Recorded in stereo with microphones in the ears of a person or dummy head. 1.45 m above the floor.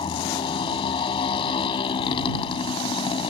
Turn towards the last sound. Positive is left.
turn(degrees=30)  # may be behind; listen again after turning